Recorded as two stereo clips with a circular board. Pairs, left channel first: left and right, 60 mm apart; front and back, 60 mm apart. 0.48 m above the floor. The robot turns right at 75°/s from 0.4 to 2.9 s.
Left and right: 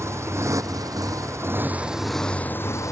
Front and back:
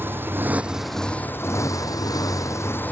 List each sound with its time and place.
0.0 s a motorcycle: 125° right; by 2.9 s 60° left